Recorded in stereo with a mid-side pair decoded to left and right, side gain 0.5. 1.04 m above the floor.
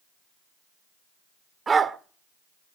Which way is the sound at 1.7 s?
35° right.